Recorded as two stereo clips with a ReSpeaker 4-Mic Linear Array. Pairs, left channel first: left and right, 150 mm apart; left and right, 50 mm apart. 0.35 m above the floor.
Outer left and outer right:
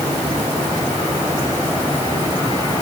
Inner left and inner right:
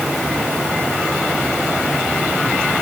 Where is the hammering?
No hammering in this recording.